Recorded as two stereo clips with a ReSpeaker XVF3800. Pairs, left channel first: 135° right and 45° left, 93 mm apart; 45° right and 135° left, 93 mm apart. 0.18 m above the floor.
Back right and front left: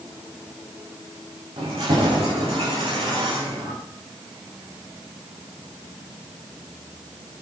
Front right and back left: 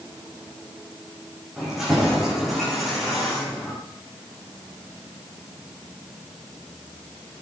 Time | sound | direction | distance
1.6 | keys jangling | 45° left | 8.5 m